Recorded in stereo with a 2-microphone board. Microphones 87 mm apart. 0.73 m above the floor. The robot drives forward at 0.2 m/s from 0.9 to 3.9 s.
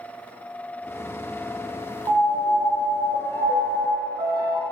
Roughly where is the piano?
Right.